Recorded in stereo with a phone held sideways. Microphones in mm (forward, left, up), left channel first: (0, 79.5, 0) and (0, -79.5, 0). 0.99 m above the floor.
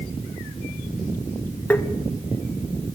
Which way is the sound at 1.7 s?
10° left (ahead or behind).